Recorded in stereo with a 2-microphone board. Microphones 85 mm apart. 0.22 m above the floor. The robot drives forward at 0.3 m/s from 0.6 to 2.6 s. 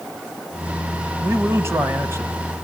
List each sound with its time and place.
1.2 s a man speaking: 30° right (ahead or behind), 1.8 m